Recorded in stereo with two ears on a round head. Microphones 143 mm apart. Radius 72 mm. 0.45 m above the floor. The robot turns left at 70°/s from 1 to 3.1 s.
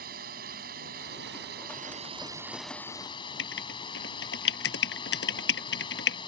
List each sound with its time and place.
0.0 s a drone: 65° right; by 6.3 s 150° left
3.4 s writing: 80° left